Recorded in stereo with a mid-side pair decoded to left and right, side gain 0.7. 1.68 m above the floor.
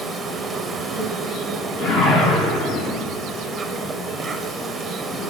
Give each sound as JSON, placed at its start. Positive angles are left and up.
{"t": 0.0, "sound": "an insect", "azimuth_deg": -15, "distance_m": 0.9}
{"t": 1.8, "sound": "a whoosh", "azimuth_deg": 40, "distance_m": 1.7}